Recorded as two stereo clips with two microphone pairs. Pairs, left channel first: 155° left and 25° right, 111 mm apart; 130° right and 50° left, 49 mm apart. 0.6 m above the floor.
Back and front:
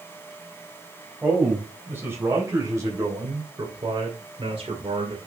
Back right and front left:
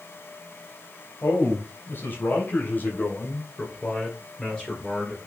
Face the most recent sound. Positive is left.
turn(degrees=-50)